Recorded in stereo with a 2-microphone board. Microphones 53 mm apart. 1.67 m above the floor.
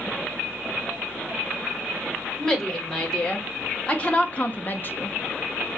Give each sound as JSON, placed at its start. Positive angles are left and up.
{"t": 2.4, "sound": "a woman speaking", "side_deg": 15, "distance_m": 1.7}